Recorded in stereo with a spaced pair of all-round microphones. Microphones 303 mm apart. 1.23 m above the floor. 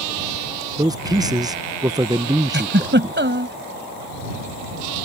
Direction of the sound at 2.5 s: 35° right (ahead or behind).